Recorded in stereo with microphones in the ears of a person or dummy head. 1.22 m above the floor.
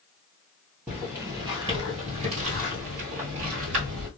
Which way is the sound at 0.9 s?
Centre (ahead or behind).